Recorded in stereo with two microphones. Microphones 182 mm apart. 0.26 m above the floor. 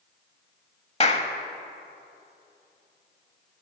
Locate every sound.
1.0 s a clap: 35° left (ahead or behind), 0.9 m